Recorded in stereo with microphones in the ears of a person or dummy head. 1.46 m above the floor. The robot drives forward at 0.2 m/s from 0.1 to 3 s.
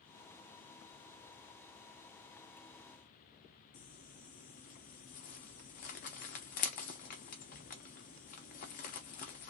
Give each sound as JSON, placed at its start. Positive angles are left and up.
{"t": 3.7, "sound": "crumpling", "side_deg": 40, "distance_m": 0.6}